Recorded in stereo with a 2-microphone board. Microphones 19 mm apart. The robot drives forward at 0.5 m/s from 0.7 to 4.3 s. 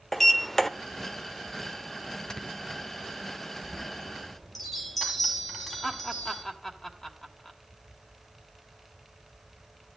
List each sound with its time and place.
0.1 s a sliding door: 20° left (ahead or behind), 0.8 m
2.3 s snoring: 45° left (ahead or behind), 1.6 m
3.6 s a chime: 5° left (ahead or behind), 2.5 m
5.8 s laughter: 25° left (ahead or behind), 2.5 m